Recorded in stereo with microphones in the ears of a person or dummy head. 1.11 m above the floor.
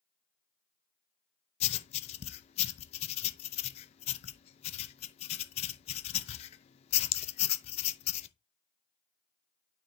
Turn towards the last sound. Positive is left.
turn(degrees=35)  # may be behind; listen again after turning